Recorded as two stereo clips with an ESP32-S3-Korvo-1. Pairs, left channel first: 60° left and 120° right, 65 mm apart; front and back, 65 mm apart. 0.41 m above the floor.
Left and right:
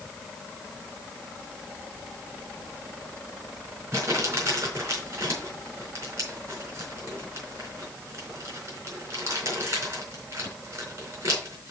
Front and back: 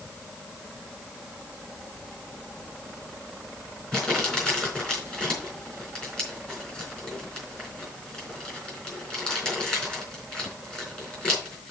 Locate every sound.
3.9 s crumpling: 80° right, 4 m